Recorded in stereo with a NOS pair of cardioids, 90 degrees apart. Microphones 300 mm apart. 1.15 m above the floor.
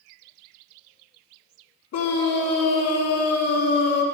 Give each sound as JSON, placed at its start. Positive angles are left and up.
{"t": 1.9, "sound": "a scream", "azimuth_deg": 65, "distance_m": 3.0}